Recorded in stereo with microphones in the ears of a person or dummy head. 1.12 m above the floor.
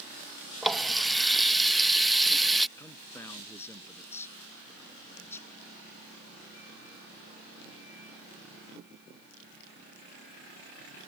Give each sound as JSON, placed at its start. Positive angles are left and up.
{"t": 0.6, "sound": "a running tap", "side_deg": 0}
{"t": 2.8, "sound": "a man speaking", "side_deg": 15}